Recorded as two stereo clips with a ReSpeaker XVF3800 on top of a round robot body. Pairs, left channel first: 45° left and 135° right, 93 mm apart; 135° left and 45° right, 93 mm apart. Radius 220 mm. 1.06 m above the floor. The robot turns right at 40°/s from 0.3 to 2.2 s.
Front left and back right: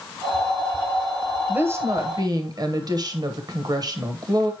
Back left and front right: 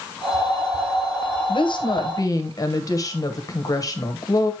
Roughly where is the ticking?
No ticking in this recording.